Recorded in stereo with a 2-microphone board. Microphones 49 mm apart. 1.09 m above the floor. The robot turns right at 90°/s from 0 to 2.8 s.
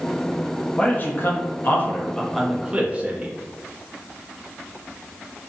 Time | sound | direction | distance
0.8 | a man speaking | 35° left | 0.5 m